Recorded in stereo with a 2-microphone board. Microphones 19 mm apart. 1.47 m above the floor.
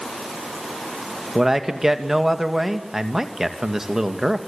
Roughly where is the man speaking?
Right.